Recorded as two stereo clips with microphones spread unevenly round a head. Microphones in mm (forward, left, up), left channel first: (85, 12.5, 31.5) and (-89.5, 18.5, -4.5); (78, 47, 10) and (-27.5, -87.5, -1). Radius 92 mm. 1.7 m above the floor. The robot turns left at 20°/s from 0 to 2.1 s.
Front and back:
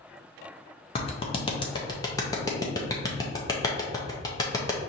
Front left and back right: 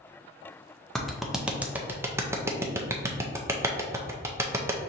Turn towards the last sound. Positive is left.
turn(degrees=-55)